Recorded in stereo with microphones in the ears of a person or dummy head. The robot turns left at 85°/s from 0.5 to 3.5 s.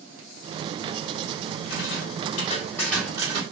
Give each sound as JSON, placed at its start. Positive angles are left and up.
{"t": 1.7, "sound": "a rattle", "azimuth_deg": 105, "distance_m": 2.5}